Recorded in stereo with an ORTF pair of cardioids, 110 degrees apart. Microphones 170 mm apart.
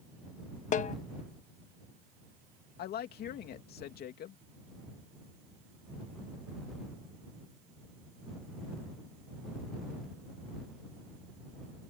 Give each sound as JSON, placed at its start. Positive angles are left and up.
{"t": 0.7, "sound": "a snare drum", "azimuth_deg": 45}
{"t": 2.8, "sound": "a woman speaking", "azimuth_deg": 65}